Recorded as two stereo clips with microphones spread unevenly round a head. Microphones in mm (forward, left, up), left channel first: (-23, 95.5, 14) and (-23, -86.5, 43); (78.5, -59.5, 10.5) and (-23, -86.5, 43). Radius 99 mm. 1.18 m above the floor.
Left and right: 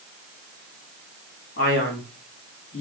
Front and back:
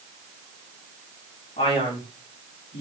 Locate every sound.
1.6 s a man speaking: 45° left, 2.0 m